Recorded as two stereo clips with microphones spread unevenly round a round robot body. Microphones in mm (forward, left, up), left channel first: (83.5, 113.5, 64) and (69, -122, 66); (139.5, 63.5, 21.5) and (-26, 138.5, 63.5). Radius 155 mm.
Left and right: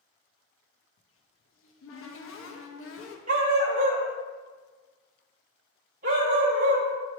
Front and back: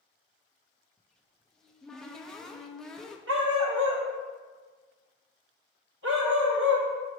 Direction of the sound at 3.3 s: 160° right.